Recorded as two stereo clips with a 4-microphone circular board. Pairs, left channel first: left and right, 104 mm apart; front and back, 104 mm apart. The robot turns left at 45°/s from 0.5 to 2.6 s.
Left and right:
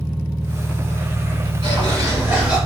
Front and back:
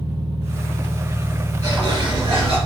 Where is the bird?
130° right, 2.5 m; by 2.6 s 175° right, 2.5 m.